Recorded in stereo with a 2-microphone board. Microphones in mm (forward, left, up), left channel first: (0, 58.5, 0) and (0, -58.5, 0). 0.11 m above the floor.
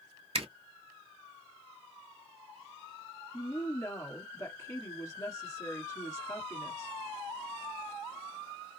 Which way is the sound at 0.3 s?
55° right (ahead or behind).